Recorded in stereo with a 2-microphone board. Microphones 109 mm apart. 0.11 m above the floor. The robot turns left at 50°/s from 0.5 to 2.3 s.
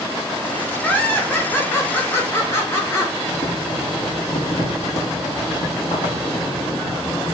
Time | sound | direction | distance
0.8 | laughter | 15° left (ahead or behind) | 1.1 m
3.3 | boiling | 80° left | 1.5 m